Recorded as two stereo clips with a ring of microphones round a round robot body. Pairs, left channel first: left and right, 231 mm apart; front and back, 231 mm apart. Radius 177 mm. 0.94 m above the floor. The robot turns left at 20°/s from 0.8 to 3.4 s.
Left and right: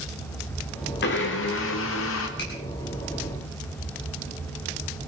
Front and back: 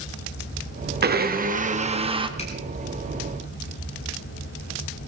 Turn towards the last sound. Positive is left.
turn(degrees=40)